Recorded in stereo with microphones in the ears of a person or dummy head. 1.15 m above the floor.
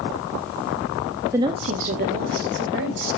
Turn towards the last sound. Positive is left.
turn(degrees=-60)  # may be behind; listen again after turning